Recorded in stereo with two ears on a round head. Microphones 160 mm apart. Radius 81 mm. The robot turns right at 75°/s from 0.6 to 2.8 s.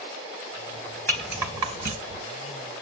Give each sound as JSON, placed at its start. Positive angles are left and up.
{"t": 1.1, "sound": "a rattle", "side_deg": 10, "distance_m": 2.5}